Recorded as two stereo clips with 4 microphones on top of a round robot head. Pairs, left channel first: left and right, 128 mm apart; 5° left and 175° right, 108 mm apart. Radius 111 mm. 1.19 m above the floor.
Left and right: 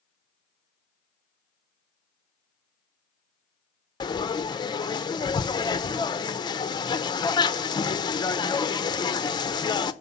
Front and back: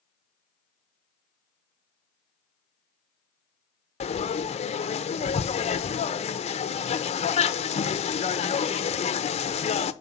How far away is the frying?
About 0.7 m.